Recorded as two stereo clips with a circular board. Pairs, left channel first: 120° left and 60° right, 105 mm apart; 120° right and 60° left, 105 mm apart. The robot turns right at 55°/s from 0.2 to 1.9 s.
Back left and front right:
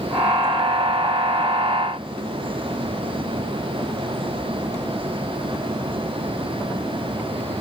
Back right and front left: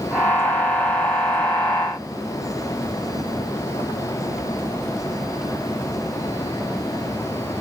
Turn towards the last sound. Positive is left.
No sound to turn to.